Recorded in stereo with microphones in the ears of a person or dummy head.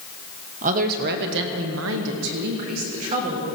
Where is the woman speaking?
45° right (ahead or behind), 1.4 m; by 3.4 s 35° right (ahead or behind), 1.9 m.